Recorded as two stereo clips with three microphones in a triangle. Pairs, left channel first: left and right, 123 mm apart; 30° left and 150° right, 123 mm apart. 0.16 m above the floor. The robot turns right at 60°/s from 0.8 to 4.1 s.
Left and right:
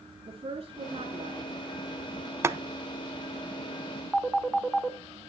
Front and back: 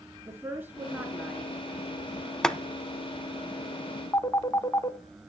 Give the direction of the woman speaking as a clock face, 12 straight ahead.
3 o'clock.